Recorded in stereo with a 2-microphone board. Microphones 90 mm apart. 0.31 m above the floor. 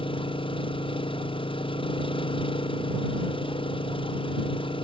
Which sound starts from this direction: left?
An engine running, at 0.0 s.